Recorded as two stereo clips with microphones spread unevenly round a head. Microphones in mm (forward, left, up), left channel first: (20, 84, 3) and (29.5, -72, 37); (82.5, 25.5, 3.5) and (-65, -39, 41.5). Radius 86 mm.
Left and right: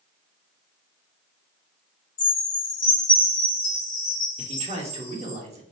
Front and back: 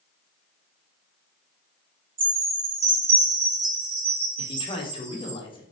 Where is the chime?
160° left, 1.9 m.